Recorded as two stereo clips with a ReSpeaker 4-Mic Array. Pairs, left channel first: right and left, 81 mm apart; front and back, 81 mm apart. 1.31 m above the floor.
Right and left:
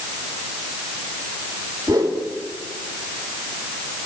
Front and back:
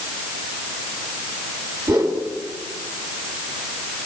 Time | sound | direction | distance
1.9 | a whoosh | 140° left | 3 m